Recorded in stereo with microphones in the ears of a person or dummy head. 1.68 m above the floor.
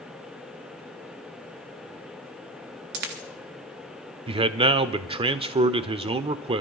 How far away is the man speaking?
About 0.5 m.